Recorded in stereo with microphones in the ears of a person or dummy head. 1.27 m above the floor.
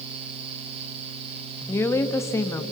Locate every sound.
1.7 s a woman speaking: 10° left (ahead or behind), 1.5 m